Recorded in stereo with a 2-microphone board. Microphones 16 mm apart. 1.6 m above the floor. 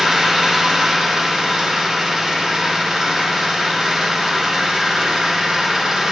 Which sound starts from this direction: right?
An engine running, at 0.0 s.